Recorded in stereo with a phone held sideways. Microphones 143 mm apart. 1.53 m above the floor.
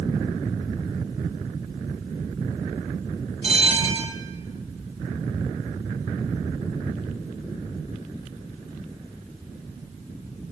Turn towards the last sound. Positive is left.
turn(degrees=-45)  # may be behind; listen again after turning